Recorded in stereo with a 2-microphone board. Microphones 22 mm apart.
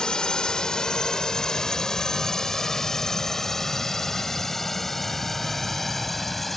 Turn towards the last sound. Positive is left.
turn(degrees=10)  # may be behind; listen again after turning